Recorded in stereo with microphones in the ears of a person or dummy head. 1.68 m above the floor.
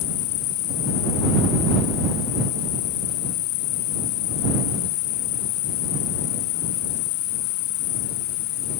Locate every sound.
0.0 s an insect: 50° left (ahead or behind)